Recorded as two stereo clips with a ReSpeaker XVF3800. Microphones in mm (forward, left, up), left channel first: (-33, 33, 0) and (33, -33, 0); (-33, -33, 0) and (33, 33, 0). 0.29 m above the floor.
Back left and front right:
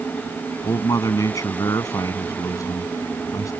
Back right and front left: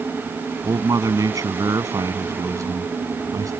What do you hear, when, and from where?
0.6 s a man speaking: 90° left